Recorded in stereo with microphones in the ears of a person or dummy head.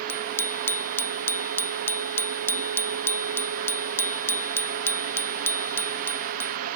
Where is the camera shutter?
No camera shutter in this recording.